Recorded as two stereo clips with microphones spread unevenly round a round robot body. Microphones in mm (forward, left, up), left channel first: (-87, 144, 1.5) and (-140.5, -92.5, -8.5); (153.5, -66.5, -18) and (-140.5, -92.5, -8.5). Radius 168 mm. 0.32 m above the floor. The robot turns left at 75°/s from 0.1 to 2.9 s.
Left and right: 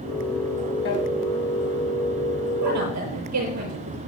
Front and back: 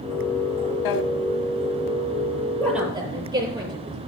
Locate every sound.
0.8 s a drawer: 20° left, 0.9 m; by 1.0 s 5° left, 0.9 m
2.6 s a woman speaking: 75° right, 7.5 m; by 4.0 s 100° right, 7.5 m